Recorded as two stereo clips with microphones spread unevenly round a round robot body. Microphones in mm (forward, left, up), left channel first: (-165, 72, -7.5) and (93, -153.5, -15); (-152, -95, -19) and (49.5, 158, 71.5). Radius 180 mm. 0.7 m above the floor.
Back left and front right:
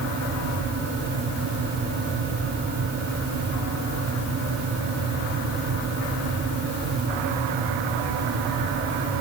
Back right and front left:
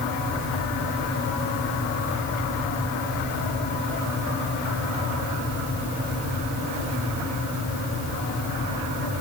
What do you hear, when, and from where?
Only background noise.